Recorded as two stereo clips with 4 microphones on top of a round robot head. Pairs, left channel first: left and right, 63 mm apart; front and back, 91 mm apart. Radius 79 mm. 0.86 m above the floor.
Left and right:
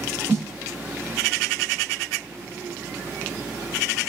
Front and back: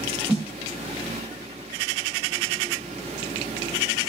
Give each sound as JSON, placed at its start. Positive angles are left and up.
{"t": 0.3, "sound": "a snare drum", "azimuth_deg": -110, "distance_m": 0.6}